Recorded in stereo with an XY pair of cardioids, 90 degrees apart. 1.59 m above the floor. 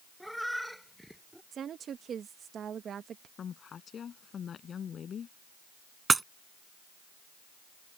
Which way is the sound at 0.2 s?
Straight ahead.